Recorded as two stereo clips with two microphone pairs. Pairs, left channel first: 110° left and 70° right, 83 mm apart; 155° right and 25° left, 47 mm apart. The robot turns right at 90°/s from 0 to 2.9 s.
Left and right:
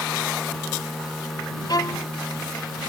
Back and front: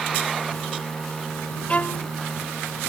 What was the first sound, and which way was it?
A violin, 135° left.